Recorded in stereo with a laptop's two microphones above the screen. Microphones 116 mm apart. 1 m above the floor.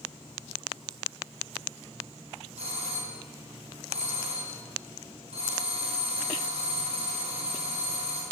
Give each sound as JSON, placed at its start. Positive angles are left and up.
{"t": 2.6, "sound": "a doorbell", "side_deg": -65, "distance_m": 4.5}